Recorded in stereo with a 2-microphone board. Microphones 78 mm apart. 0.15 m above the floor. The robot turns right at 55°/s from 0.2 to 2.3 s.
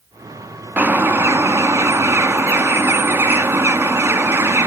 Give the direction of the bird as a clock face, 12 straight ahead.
5 o'clock.